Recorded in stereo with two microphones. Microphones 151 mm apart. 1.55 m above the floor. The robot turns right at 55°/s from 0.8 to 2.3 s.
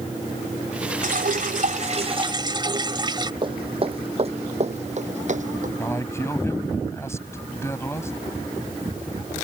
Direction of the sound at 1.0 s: 105° right.